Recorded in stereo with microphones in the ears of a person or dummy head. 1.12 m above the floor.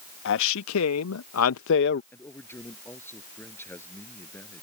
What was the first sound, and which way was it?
A man speaking, 60° left (ahead or behind).